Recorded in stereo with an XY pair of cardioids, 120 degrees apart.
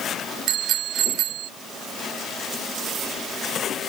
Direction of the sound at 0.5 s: 65° right.